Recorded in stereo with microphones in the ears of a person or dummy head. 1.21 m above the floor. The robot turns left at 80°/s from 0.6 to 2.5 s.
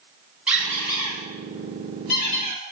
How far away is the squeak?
About 1.4 m.